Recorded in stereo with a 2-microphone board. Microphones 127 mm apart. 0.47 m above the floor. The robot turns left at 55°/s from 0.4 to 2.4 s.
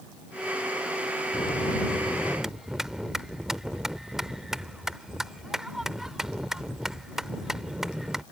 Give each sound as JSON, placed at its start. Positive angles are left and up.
{"t": 1.3, "sound": "a bell", "azimuth_deg": 55}